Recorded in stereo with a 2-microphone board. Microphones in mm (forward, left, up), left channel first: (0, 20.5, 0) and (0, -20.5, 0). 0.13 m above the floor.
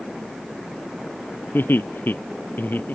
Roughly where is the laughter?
Left.